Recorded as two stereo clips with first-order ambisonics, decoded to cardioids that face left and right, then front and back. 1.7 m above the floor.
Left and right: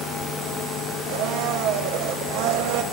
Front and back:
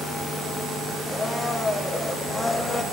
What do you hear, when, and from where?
1.1 s a blender: 80° right, 1.1 m